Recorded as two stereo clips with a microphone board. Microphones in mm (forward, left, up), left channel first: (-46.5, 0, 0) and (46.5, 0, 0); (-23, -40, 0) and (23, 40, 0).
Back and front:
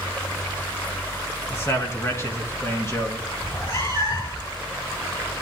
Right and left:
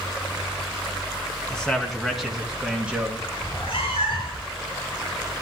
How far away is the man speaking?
About 1.8 m.